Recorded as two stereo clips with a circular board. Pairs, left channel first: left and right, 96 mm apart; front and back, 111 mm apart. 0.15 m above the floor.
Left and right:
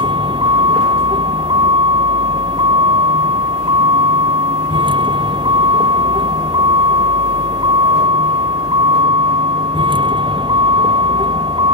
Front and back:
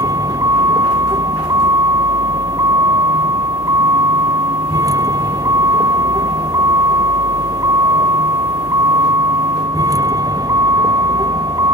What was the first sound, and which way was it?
A vehicle, 120° right.